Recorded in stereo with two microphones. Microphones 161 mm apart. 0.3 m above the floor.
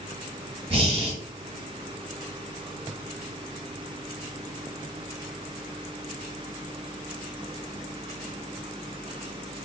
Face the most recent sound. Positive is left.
turn(degrees=-35)  # may be behind; listen again after turning